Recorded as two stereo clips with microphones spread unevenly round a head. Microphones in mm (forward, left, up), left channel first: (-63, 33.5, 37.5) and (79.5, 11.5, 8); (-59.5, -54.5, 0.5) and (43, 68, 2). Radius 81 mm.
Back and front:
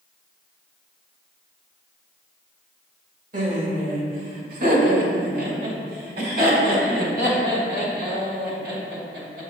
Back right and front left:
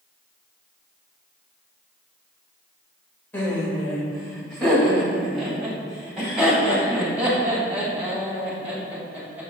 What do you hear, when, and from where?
3.3 s laughter: 50° right, 2.5 m; by 9.4 s 30° right, 6 m